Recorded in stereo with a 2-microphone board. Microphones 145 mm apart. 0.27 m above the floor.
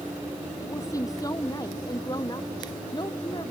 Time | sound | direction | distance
0.6 | a woman speaking | 20° left (ahead or behind) | ?